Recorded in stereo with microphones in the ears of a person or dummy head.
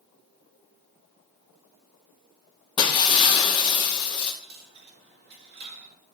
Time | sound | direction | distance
2.8 | breaking glass | 25° left (ahead or behind) | 1.3 m
4.4 | a dropped coin | 50° right (ahead or behind) | 1.8 m